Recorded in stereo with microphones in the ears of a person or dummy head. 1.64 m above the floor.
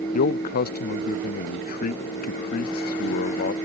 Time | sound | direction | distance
0.1 | a man speaking | 50° left (ahead or behind) | ?